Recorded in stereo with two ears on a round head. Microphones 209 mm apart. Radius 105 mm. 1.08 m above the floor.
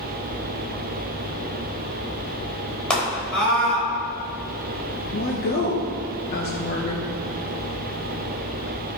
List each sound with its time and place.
2.9 s a scream: 5° left (ahead or behind), 4 m
5.1 s a woman speaking: 45° left (ahead or behind), 0.9 m